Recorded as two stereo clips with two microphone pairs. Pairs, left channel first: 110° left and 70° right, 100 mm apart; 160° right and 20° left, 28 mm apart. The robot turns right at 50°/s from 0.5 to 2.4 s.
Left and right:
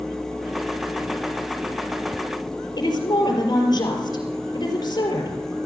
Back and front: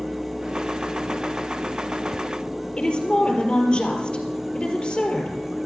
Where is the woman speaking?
150° left, 4 m.